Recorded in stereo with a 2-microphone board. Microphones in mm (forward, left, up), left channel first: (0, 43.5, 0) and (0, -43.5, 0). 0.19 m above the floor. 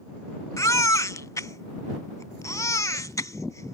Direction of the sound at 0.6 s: 40° left (ahead or behind).